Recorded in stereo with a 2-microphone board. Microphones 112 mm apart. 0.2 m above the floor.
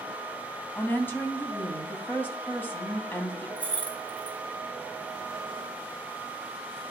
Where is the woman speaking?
20° left (ahead or behind), 1.1 m.